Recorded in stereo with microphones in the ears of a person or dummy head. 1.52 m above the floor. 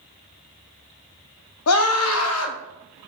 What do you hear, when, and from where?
1.7 s a scream: 90° left, 0.8 m